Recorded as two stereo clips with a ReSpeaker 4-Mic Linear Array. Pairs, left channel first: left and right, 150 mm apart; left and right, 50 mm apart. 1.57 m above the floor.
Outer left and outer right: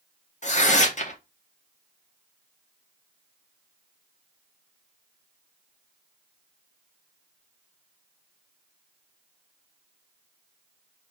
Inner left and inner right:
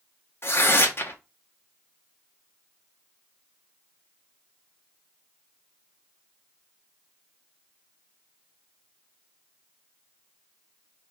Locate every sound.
0.4 s tearing paper: 55° left (ahead or behind), 0.9 m